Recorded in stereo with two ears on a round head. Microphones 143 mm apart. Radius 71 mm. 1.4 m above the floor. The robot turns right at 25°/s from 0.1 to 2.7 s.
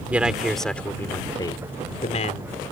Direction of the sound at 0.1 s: 10° right.